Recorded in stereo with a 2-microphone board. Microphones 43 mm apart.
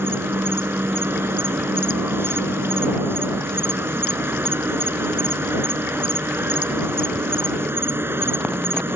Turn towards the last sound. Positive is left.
turn(degrees=-70)  # may be behind; listen again after turning